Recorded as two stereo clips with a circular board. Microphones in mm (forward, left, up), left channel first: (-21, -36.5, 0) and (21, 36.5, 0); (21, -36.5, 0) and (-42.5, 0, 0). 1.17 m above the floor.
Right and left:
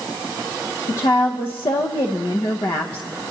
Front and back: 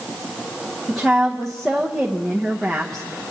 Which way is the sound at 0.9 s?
115° right.